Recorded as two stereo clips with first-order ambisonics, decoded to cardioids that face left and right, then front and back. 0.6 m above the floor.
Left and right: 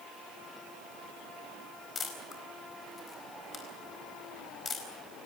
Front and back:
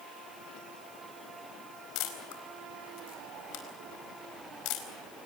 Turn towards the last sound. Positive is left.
turn(degrees=20)